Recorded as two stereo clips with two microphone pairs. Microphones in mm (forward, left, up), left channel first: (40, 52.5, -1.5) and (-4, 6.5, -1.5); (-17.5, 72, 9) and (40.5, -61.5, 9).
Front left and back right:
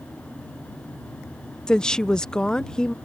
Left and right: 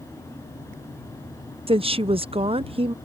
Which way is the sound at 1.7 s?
25° right.